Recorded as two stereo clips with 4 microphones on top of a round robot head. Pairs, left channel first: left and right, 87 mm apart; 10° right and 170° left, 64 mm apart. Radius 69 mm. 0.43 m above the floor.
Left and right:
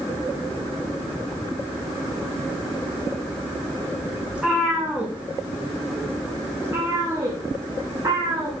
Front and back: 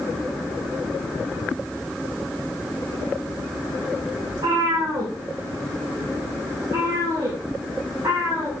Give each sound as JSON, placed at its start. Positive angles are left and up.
{"t": 4.3, "sound": "a cat meowing", "azimuth_deg": -170, "distance_m": 5.5}